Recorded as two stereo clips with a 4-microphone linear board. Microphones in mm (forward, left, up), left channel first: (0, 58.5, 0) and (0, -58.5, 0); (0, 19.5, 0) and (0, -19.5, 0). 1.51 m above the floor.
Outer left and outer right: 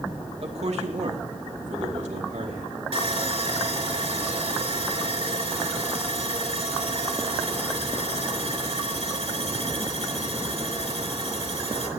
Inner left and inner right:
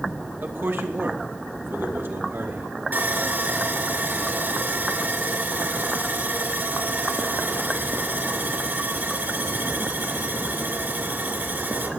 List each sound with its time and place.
0.4 s a man speaking: 55° right (ahead or behind), 2.5 m; by 2.7 s 85° right, 5 m
2.9 s sawing: 60° right (ahead or behind), 3 m